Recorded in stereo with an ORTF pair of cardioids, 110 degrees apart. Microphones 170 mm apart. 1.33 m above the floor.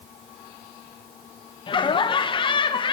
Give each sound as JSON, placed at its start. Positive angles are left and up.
{"t": 1.7, "sound": "laughter", "azimuth_deg": 30, "distance_m": 0.7}